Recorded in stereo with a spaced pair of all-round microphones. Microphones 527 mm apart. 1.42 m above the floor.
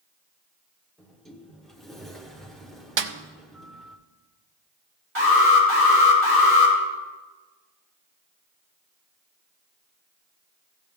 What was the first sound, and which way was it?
A sliding door, centre (ahead or behind).